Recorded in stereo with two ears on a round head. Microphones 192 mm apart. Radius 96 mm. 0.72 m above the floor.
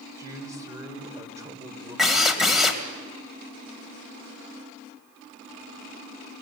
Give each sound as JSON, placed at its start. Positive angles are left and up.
{"t": 0.2, "sound": "a man speaking", "side_deg": -15, "distance_m": 3.5}
{"t": 2.0, "sound": "a drill", "side_deg": 0, "distance_m": 2.5}